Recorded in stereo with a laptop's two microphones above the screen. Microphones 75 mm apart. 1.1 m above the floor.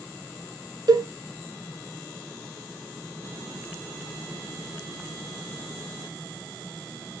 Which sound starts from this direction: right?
A cowbell, at 0.9 s.